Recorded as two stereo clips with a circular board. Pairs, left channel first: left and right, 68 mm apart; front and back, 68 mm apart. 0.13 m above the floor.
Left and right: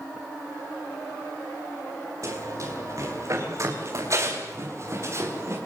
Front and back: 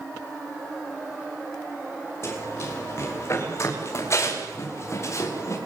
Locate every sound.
2.2 s running footsteps: 50° right, 10 m; by 5.6 s 45° right, 8 m